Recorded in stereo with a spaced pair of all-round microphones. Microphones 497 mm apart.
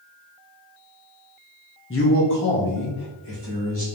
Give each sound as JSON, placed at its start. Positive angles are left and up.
{"t": 1.9, "sound": "a man speaking", "side_deg": 25, "distance_m": 0.7}